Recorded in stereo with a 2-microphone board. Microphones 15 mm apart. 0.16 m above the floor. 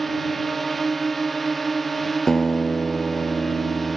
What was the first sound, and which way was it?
A drone, 5° left (ahead or behind).